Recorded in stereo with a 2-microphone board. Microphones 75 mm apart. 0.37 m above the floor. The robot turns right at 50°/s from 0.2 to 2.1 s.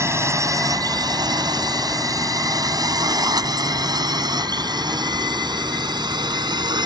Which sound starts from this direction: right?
A drone, at 0.0 s.